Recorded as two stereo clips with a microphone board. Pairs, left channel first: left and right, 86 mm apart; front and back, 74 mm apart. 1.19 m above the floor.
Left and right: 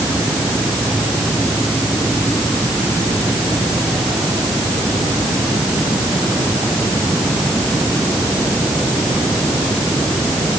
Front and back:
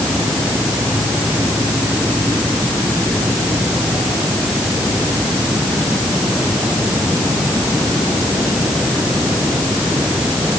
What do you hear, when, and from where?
Only background noise.